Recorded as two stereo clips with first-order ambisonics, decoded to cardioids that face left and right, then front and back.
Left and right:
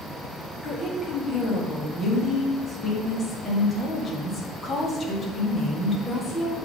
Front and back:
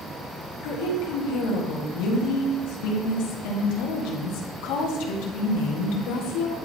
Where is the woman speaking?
15° left, 1.4 m.